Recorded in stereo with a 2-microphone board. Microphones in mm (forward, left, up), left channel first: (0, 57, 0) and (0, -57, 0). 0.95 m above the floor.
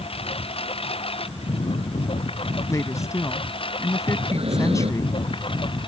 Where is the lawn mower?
55° left (ahead or behind); by 5.9 s 45° left (ahead or behind).